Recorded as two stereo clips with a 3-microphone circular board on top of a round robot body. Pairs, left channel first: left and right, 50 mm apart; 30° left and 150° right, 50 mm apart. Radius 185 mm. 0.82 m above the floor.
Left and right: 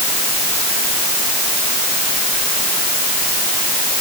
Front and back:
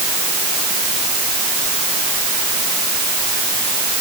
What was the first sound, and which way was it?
Only background noise.